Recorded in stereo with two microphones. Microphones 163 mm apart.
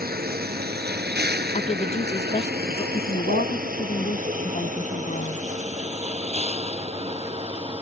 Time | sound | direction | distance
0.0 | a vehicle | 70° right (ahead or behind) | ?
1.5 | a woman speaking | 45° left (ahead or behind) | ?
2.9 | a woman speaking | 50° left (ahead or behind) | ?